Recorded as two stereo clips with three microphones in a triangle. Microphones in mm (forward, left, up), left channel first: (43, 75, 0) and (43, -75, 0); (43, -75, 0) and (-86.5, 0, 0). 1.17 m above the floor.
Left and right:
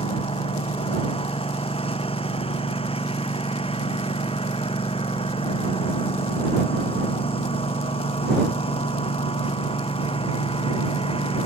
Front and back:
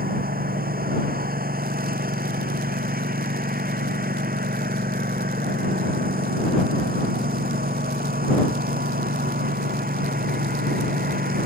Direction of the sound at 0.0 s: 140° left.